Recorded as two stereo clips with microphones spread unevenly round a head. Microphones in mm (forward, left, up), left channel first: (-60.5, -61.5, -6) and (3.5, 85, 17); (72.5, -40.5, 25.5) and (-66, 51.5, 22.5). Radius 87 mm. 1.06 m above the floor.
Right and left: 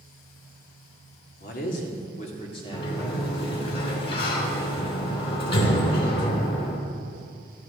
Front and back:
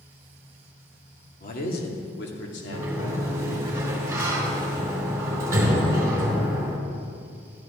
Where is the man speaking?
75° right, 2 m; by 3.7 s 30° right, 2.5 m.